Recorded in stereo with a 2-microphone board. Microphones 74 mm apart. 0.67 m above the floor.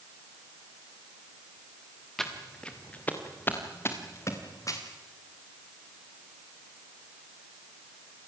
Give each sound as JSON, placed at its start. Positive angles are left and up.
{"t": 2.2, "sound": "footsteps", "side_deg": 5, "distance_m": 3.5}